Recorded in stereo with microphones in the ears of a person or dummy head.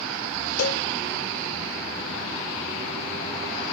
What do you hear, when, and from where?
0.6 s a cowbell: 75° left (ahead or behind), 1.0 m